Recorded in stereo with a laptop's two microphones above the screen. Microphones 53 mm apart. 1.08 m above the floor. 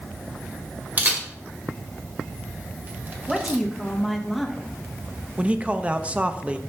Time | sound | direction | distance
1.0 | a camera shutter | 35° right (ahead or behind) | 1.8 m
3.3 | a woman speaking | centre (ahead or behind) | 1.7 m
5.4 | a man speaking | 20° right (ahead or behind) | 0.7 m